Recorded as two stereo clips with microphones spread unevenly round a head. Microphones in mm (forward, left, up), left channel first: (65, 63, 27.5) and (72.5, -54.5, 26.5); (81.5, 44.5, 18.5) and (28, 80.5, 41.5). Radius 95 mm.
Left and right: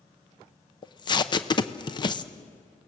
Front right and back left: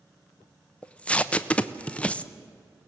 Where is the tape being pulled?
45° left, 0.9 m.